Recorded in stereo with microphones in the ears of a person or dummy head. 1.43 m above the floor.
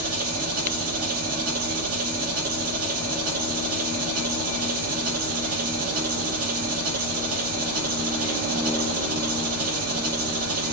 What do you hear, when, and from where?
0.0 s an engine running: 50° right (ahead or behind), 1.6 m